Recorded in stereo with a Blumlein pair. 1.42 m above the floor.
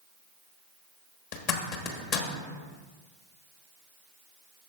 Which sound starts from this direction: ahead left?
A zipper, at 1.3 s.